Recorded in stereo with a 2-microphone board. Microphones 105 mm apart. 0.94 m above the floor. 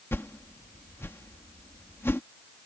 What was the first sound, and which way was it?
A whoosh, 25° left (ahead or behind).